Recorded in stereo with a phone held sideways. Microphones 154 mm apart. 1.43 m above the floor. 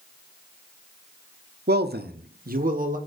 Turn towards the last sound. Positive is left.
turn(degrees=-55)  # may be behind; listen again after turning